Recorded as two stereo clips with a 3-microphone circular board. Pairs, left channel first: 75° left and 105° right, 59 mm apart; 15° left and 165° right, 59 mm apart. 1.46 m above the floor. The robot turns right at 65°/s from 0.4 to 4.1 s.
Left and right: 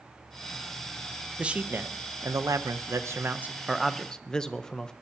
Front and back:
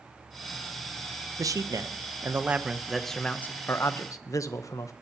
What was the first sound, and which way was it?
A man speaking, straight behind.